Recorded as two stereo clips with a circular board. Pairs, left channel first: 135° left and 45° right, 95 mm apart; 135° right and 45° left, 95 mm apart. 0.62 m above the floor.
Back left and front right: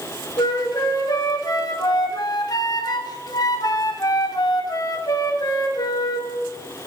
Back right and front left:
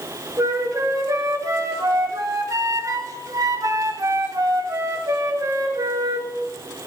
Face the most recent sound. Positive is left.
turn(degrees=95)